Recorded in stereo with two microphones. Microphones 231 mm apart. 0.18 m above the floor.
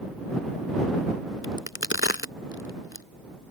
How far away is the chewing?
I don't hear chewing.